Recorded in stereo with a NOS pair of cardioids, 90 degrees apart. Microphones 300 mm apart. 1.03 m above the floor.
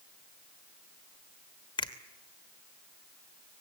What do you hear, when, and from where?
1.8 s a finger snap: 15° left, 2.5 m